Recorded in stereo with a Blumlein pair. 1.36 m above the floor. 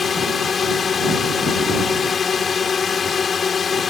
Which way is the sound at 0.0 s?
20° left.